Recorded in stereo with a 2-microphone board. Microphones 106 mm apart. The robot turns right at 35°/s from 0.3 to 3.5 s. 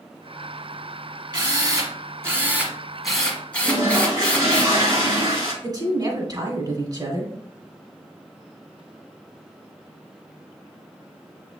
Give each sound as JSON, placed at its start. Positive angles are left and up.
{"t": 1.3, "sound": "a drill", "azimuth_deg": -60, "distance_m": 1.4}
{"t": 3.6, "sound": "a toilet flushing", "side_deg": -30, "distance_m": 2.0}
{"t": 5.6, "sound": "a woman speaking", "side_deg": -35, "distance_m": 1.4}